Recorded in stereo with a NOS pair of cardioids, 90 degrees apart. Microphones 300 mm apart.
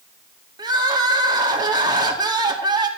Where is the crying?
15° right, 2 m.